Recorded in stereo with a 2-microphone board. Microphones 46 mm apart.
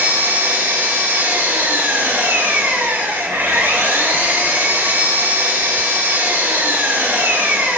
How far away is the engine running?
About 4.5 m.